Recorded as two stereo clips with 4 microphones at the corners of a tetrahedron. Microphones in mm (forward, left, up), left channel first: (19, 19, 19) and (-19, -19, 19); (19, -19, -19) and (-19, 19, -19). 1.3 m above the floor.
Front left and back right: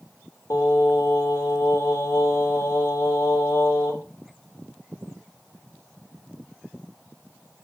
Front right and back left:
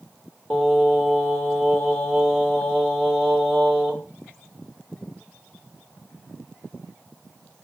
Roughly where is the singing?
Ahead left.